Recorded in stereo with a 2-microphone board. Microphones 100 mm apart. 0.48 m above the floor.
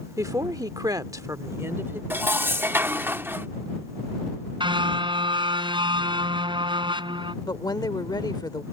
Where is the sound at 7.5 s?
45° left (ahead or behind).